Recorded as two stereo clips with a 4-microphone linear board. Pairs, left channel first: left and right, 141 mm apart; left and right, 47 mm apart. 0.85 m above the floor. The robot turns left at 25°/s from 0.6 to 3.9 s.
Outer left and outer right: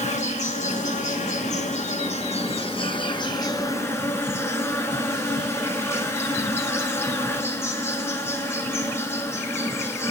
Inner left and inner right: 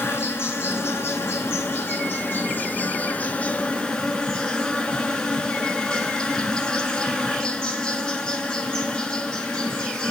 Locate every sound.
0.0 s an insect: 105° left, 1.5 m; by 10.1 s 20° left, 1.5 m